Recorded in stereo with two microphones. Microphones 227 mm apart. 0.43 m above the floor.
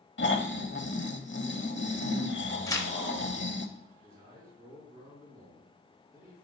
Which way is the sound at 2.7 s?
15° left (ahead or behind).